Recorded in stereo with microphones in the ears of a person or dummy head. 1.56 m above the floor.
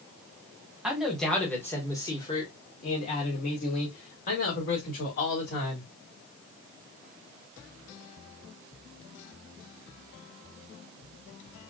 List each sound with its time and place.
0.8 s a man speaking: 5° right (ahead or behind), 1.5 m; by 5.9 s 65° left (ahead or behind), 3 m